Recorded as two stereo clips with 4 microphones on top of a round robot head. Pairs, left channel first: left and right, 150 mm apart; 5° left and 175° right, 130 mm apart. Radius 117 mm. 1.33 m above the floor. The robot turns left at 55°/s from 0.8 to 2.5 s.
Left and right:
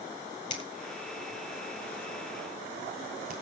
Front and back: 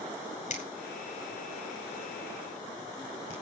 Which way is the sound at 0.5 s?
30° left.